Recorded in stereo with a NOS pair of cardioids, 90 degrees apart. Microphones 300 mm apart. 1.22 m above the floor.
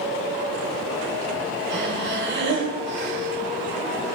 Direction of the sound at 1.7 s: 40° right.